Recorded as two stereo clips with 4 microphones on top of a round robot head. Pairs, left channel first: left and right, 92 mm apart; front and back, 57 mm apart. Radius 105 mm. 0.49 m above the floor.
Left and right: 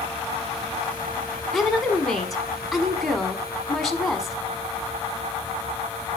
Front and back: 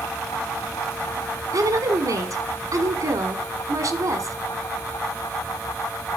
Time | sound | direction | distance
1.5 | a woman speaking | straight behind | 1.6 m